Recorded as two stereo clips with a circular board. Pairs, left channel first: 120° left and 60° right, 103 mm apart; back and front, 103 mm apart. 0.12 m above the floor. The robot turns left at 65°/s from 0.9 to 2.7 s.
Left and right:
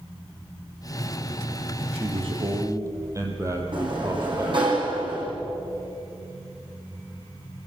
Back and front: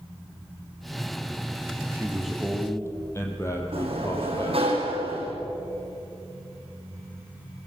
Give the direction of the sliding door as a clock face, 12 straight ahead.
1 o'clock.